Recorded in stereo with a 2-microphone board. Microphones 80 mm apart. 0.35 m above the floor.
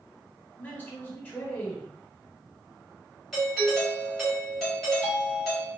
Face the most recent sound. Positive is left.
turn(degrees=0)  # may be behind; listen again after turning